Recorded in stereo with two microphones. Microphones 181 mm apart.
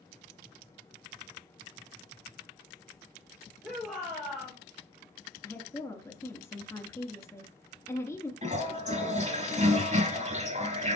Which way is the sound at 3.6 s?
Centre (ahead or behind).